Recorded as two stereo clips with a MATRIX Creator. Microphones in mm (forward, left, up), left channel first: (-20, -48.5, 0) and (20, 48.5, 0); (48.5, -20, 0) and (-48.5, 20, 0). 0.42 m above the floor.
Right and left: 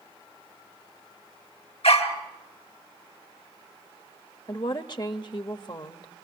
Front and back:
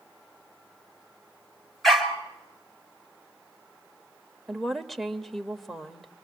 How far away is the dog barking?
About 2 m.